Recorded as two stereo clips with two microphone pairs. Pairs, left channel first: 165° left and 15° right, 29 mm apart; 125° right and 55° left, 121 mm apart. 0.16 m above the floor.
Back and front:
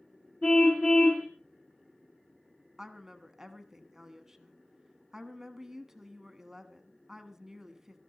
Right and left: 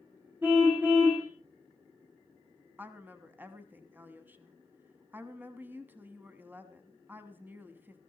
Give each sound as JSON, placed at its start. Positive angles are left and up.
{"t": 0.4, "sound": "a car horn", "azimuth_deg": 130, "distance_m": 5.0}
{"t": 2.8, "sound": "a woman speaking", "azimuth_deg": 20, "distance_m": 1.0}